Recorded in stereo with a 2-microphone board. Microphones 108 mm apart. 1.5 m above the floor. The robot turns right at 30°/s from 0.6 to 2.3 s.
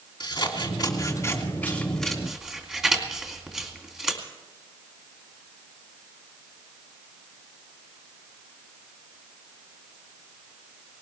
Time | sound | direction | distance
0.2 | scissors | 45° left (ahead or behind) | 3 m